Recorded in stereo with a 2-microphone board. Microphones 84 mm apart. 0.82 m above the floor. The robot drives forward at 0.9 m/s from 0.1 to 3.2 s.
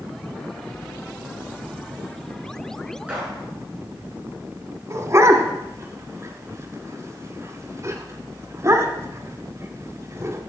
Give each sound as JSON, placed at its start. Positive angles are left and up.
{"t": 3.1, "sound": "a gunshot", "side_deg": -15, "distance_m": 7.0}
{"t": 4.9, "sound": "a dog barking", "side_deg": -35, "distance_m": 1.8}